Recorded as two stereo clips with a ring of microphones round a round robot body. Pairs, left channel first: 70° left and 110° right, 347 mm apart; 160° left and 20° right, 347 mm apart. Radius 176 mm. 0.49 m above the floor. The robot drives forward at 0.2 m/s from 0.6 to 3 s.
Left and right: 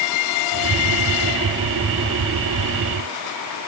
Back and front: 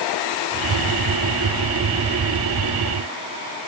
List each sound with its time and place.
Only background noise.